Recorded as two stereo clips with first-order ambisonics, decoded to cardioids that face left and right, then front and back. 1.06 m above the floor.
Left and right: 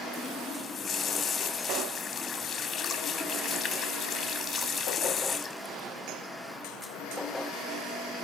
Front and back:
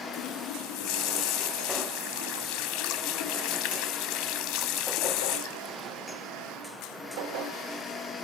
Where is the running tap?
20° left, 1.4 m.